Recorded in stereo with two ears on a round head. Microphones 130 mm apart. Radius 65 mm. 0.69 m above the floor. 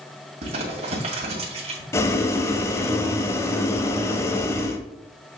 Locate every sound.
0.4 s crumpling: 45° right (ahead or behind), 2 m
1.9 s boiling: 20° left (ahead or behind), 0.9 m